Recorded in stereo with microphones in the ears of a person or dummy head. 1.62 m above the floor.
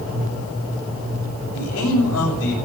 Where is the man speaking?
75° left (ahead or behind), 6.5 m.